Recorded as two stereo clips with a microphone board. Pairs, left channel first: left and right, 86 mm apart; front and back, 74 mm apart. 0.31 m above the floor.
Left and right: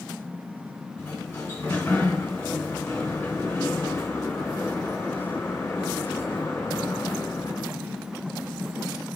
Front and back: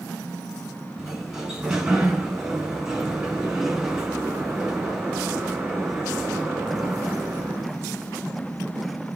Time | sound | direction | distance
1.0 | a sliding door | 105° left | 1.3 m